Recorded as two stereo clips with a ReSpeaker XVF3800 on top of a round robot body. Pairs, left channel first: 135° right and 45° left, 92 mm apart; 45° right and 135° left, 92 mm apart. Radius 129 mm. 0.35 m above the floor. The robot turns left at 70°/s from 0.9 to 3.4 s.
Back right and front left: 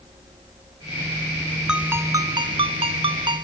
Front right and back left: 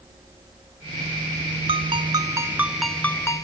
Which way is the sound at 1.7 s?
125° left.